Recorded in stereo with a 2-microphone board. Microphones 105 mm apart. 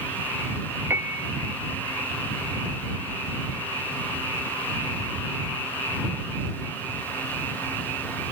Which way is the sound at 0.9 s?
20° right (ahead or behind).